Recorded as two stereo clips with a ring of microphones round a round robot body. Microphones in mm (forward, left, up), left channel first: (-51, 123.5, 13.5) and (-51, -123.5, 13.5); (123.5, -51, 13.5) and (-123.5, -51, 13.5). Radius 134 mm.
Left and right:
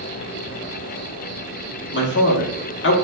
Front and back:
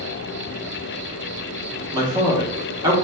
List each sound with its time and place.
0.0 s an insect: 110° right, 2 m
1.9 s a man speaking: 110° left, 1.0 m